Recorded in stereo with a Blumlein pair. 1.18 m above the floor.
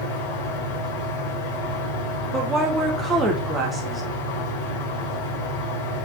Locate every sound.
0.0 s a fan: 40° left, 3.5 m
2.3 s a woman speaking: 15° right, 0.9 m